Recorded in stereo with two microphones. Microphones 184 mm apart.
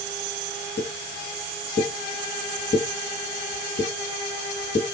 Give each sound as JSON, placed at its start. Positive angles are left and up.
{"t": 0.8, "sound": "a pop", "side_deg": 55, "distance_m": 1.0}